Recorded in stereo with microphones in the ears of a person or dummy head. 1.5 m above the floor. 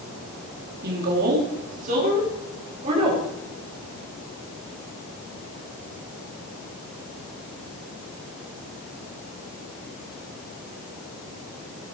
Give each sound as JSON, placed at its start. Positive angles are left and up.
{"t": 0.8, "sound": "a woman speaking", "side_deg": -55, "distance_m": 3.5}